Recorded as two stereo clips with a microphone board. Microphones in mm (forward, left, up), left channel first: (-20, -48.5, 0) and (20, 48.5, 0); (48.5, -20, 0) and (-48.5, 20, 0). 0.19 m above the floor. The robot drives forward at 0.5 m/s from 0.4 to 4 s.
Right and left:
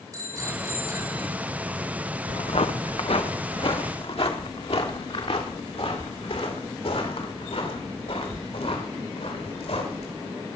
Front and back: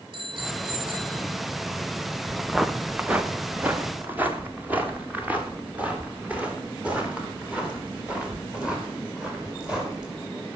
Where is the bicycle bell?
125° left, 6 m.